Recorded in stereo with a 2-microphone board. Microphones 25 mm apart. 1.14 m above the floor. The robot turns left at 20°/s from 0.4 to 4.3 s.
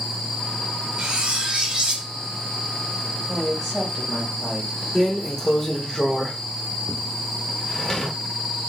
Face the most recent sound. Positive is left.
turn(degrees=20)  # may be behind; listen again after turning